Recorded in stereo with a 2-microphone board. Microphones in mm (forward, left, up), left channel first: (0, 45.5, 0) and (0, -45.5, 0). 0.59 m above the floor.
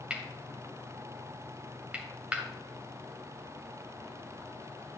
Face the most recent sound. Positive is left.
turn(degrees=-15)  # may be behind; listen again after turning